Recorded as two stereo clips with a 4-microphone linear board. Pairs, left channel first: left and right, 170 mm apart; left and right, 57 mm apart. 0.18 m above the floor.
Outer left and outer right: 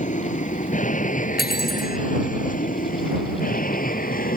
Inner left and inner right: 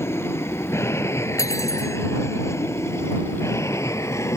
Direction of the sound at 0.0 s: 45° left (ahead or behind).